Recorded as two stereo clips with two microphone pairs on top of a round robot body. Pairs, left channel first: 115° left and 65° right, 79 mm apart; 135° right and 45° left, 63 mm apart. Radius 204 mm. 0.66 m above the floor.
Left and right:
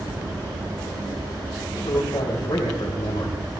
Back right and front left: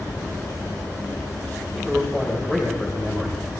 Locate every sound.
1.8 s a man speaking: 150° left, 4 m